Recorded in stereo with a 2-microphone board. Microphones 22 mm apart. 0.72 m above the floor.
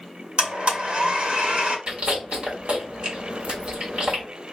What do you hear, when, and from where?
0.4 s a blender: 50° right (ahead or behind), 1.8 m
1.9 s chewing: 55° right (ahead or behind), 2 m